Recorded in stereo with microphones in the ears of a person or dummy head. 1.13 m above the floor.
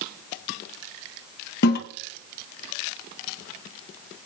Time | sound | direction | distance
1.6 | a toilet flushing | 55° left (ahead or behind) | 1.0 m